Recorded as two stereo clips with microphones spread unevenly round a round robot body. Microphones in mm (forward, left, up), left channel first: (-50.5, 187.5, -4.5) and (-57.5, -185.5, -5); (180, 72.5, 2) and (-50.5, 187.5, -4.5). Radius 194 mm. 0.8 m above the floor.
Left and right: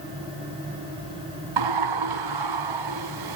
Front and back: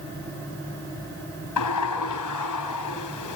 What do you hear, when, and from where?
1.6 s a sliding door: 55° right, 4 m